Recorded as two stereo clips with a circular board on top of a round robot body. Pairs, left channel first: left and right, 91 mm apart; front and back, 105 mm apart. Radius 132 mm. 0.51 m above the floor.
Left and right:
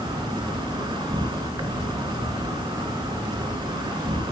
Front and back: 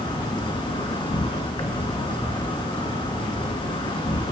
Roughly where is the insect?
Ahead right.